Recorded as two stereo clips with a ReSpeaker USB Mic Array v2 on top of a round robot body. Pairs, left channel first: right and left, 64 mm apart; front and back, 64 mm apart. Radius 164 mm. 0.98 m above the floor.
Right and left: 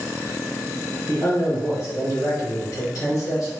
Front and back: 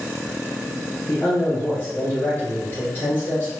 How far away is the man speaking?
About 1.0 m.